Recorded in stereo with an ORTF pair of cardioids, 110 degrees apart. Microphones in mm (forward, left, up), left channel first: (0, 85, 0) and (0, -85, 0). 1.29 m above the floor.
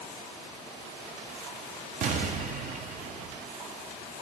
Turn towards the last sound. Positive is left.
turn(degrees=-55)